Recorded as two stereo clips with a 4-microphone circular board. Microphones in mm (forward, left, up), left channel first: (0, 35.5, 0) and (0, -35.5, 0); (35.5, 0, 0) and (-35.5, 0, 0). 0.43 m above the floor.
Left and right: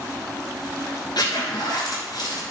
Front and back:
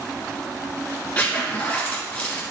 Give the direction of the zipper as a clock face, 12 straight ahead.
10 o'clock.